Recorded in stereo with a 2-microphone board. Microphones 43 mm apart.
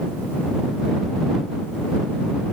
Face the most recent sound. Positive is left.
No sound to turn to.